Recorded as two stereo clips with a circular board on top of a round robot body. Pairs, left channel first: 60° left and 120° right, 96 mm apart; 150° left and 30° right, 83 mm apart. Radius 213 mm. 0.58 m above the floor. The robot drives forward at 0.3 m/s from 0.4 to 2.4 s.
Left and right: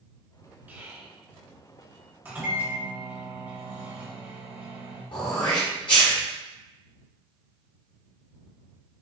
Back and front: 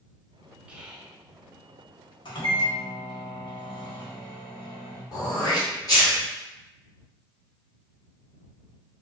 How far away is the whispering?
About 1.0 m.